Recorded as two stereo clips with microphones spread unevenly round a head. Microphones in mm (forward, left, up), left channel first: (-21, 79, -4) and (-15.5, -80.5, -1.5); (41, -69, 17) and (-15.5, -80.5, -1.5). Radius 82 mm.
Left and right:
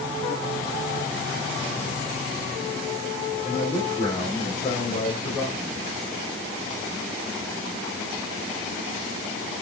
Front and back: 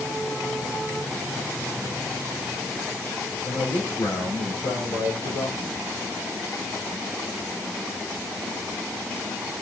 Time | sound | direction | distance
3.5 | a man speaking | 40° left | 5 m